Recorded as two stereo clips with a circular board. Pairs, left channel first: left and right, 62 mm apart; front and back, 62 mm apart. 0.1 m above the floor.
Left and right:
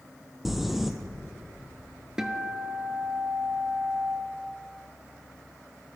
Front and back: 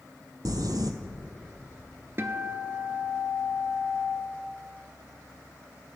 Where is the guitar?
165° right, 0.6 m.